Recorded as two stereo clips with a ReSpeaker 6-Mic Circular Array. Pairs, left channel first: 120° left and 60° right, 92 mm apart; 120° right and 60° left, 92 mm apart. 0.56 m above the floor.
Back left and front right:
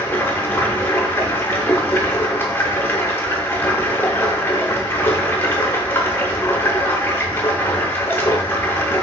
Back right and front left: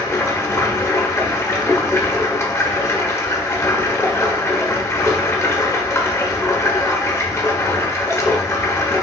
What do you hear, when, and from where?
0.0 s running water: 175° right, 0.8 m